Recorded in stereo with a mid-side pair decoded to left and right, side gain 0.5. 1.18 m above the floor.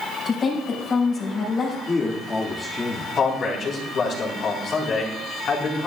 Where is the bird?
I don't hear a bird.